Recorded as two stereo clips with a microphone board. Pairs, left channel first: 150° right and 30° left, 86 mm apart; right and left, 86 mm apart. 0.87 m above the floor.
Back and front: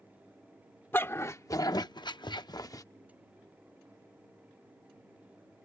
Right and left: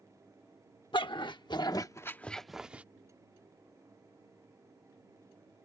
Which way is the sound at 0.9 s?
90° right.